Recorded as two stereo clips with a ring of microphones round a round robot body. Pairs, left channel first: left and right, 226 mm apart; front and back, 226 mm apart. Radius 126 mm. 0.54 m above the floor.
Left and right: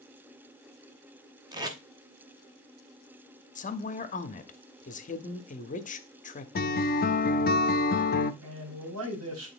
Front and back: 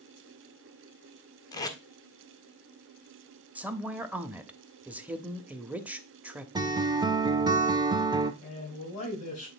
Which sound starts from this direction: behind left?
A guitar, at 6.5 s.